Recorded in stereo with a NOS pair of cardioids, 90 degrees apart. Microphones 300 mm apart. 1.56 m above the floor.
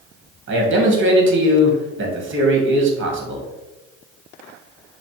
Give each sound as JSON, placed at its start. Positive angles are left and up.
{"t": 0.5, "sound": "a man speaking", "azimuth_deg": -40, "distance_m": 1.3}